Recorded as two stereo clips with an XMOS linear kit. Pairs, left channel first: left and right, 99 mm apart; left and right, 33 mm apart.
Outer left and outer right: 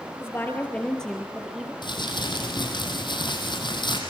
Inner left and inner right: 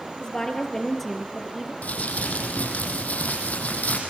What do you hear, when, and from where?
0.2 s a woman speaking: 25° left (ahead or behind), 2.5 m; by 1.7 s 5° right (ahead or behind), 3 m
1.8 s crumpling: 55° left (ahead or behind), 4.5 m